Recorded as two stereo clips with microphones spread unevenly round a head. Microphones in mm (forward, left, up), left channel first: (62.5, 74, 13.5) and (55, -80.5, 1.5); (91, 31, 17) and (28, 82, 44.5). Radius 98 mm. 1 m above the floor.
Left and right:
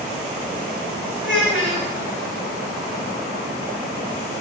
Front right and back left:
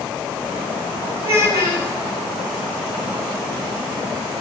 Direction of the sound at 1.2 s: Straight behind.